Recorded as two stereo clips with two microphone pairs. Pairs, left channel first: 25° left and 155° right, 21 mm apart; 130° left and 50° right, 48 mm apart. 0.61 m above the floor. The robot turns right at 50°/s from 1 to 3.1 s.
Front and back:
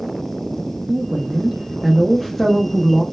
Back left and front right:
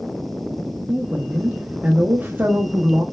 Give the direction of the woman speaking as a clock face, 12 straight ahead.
4 o'clock.